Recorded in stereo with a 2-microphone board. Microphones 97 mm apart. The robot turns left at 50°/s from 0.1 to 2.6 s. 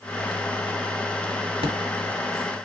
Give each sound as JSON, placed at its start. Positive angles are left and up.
{"t": 1.6, "sound": "an explosion", "side_deg": -65, "distance_m": 1.6}